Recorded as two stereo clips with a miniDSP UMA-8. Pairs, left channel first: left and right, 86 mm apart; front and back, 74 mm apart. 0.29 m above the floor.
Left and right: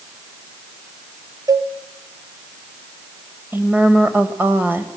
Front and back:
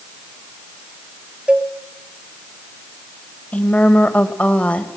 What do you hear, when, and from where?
1.5 s a cowbell: 110° right, 1.1 m
3.5 s a woman speaking: 55° right, 1.5 m